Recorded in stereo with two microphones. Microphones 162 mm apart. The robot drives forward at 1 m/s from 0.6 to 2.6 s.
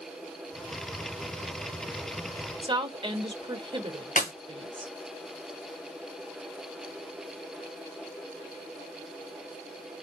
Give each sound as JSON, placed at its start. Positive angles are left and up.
{"t": 2.6, "sound": "a woman speaking", "side_deg": -30, "distance_m": 0.9}
{"t": 4.2, "sound": "a clap", "side_deg": 50, "distance_m": 2.0}